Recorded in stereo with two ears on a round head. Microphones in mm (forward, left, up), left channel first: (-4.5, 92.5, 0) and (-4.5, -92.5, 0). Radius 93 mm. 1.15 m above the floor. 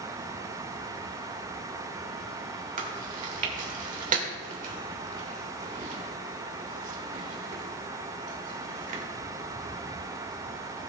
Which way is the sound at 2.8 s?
40° right (ahead or behind).